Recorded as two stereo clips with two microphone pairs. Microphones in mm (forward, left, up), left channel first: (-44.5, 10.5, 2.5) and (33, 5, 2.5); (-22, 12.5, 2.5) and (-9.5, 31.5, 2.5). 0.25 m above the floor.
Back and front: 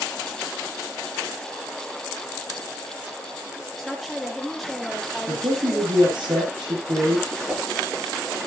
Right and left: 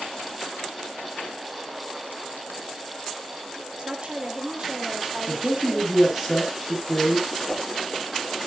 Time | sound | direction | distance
3.8 | a woman speaking | 90° left | 5 m
5.3 | a man speaking | 15° right | 7 m
7.5 | a whoosh | 75° right | 4 m